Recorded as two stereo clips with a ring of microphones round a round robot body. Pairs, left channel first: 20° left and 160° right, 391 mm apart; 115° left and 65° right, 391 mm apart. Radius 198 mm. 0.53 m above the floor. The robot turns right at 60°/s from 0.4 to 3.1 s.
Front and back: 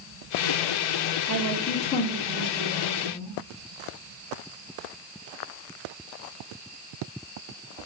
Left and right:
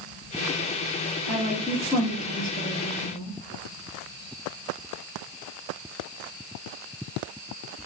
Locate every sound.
1.3 s a woman speaking: 5° left, 1.2 m; by 3.3 s 115° left, 1.2 m